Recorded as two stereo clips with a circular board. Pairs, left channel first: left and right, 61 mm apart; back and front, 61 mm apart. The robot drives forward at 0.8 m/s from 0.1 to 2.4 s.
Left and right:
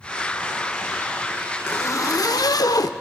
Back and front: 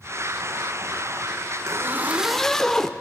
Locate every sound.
1.7 s a zipper: 40° left, 0.7 m; by 2.9 s 100° left, 0.5 m